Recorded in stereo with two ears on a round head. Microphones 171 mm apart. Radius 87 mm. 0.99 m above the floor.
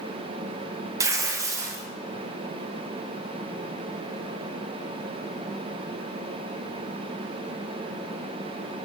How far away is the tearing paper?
About 0.6 m.